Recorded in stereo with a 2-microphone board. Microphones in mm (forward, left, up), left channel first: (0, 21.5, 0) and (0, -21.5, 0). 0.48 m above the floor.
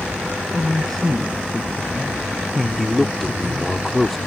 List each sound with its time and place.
0.5 s a man speaking: 10° left (ahead or behind); by 3.7 s 10° right (ahead or behind)
2.8 s a man speaking: 5° left (ahead or behind)